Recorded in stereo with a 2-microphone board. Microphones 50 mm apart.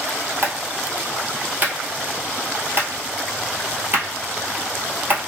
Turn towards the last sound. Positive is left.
turn(degrees=-40)  # may be behind; listen again after turning